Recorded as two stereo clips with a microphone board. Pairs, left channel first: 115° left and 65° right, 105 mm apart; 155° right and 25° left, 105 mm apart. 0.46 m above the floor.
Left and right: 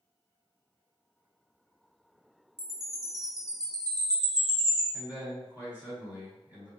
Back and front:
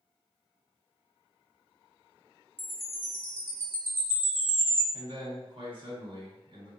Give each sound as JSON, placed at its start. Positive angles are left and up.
{"t": 2.6, "sound": "a chime", "azimuth_deg": -30, "distance_m": 0.8}
{"t": 4.9, "sound": "a man speaking", "azimuth_deg": 10, "distance_m": 1.4}